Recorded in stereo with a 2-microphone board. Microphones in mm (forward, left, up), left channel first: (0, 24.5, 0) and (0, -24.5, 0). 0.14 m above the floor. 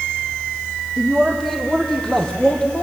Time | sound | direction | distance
1.0 | a man speaking | centre (ahead or behind) | 5 m